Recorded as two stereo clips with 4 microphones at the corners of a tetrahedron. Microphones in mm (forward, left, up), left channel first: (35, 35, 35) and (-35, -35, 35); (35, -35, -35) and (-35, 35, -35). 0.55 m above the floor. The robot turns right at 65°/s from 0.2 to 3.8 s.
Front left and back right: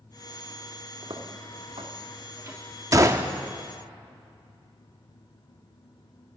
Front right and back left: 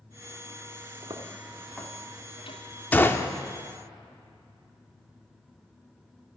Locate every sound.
1.0 s footsteps: 175° left, 2.5 m; by 2.6 s 65° right, 2.5 m
2.9 s a gunshot: 105° right, 0.7 m; by 3.3 s 80° right, 0.7 m